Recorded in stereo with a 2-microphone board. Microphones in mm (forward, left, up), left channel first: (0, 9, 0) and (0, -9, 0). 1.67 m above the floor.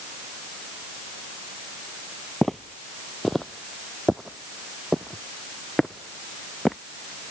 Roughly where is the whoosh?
I don't hear a whoosh.